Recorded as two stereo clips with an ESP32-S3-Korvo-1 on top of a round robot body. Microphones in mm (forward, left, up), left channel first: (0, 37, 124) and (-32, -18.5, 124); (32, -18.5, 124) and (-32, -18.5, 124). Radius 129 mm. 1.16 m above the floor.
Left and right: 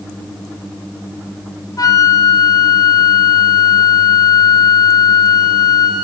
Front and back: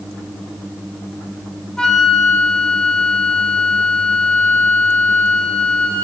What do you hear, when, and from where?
1.8 s a flute: 80° left, 1.3 m